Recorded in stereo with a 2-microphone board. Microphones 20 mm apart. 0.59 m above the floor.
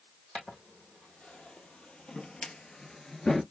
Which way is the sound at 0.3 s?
70° left (ahead or behind).